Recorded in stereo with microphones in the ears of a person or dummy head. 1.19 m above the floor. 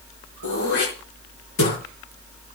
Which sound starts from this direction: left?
Throat clearing, at 0.4 s.